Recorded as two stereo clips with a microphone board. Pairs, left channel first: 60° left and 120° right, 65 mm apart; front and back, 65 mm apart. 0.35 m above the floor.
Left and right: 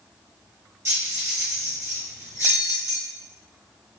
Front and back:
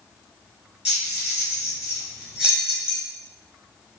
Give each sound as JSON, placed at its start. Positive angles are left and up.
{"t": 0.8, "sound": "keys jangling", "azimuth_deg": -105, "distance_m": 1.2}